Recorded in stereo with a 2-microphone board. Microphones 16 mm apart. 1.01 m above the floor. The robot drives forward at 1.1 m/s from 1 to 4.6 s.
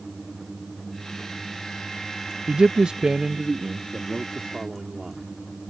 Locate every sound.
2.5 s a man speaking: 60° right (ahead or behind); by 5.3 s 20° right (ahead or behind)